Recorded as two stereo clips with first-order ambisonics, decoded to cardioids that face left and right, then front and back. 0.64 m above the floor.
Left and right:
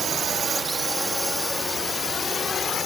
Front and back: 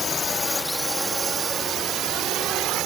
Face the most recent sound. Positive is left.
turn(degrees=150)